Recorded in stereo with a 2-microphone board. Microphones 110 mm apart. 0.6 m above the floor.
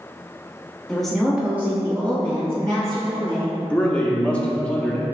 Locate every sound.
0.9 s a woman speaking: 5° left (ahead or behind), 1.0 m; by 3.6 s 35° right (ahead or behind), 1.9 m
3.7 s a man speaking: 10° left (ahead or behind), 0.6 m